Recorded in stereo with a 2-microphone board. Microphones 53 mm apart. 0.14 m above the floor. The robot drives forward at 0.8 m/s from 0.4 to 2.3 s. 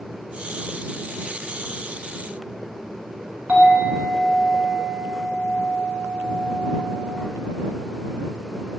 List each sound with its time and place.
3.5 s a clink: 35° right (ahead or behind), 1.2 m